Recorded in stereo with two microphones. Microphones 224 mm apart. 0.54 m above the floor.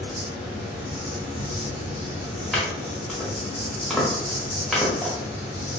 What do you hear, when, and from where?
0.0 s an insect: 15° right (ahead or behind), 1.4 m
2.5 s chopping: centre (ahead or behind), 0.9 m